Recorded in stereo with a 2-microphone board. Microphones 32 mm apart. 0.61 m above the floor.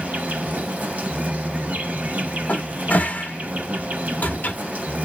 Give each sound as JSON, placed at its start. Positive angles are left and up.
{"t": 0.0, "sound": "an insect", "side_deg": -55, "distance_m": 0.7}
{"t": 2.5, "sound": "a cupboard door", "side_deg": 60, "distance_m": 0.7}